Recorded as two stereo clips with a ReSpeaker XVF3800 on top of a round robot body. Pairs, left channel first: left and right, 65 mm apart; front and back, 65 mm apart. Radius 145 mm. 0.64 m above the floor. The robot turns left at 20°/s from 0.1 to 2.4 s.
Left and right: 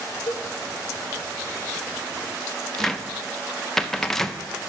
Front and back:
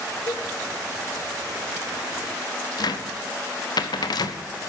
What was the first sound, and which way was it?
A cowbell, 60° left.